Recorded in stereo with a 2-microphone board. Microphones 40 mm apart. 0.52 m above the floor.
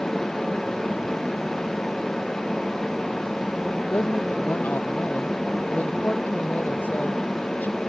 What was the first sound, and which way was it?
A woman speaking, 45° left (ahead or behind).